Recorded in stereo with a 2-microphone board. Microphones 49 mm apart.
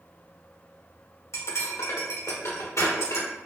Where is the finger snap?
I don't hear a finger snap.